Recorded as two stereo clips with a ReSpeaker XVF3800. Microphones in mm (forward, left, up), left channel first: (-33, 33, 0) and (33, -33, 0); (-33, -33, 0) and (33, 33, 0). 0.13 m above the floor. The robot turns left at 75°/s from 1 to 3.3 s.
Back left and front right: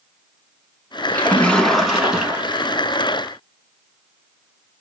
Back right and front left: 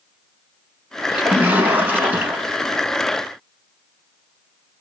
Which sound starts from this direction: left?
A splash, at 1.1 s.